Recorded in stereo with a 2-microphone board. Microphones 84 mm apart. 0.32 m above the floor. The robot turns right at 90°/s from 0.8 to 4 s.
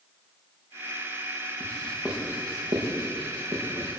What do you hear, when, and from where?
1.6 s writing: 35° left (ahead or behind), 7.5 m; by 3.9 s 10° right (ahead or behind), 7.5 m